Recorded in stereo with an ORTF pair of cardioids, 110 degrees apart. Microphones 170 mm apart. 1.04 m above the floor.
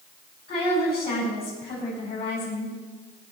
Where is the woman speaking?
65° left, 5.5 m.